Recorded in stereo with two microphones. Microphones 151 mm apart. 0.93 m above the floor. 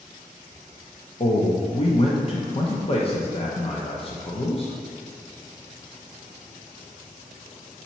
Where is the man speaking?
40° left (ahead or behind), 0.6 m.